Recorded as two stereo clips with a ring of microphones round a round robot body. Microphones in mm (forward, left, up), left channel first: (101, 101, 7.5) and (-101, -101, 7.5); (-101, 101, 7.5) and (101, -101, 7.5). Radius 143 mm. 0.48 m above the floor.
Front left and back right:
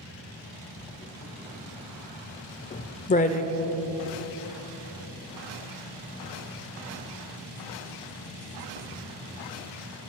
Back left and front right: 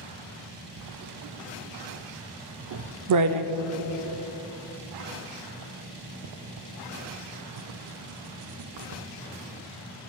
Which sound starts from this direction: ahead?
Writing, at 0.8 s.